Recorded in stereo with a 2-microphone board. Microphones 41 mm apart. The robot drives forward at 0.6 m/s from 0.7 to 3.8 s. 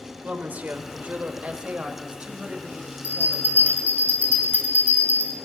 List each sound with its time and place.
0.2 s a woman speaking: 50° right (ahead or behind), 2.0 m; by 3.8 s 25° right (ahead or behind), 3.5 m
3.0 s a bell: 65° left (ahead or behind), 4 m; by 5.4 s 70° left (ahead or behind), 3.5 m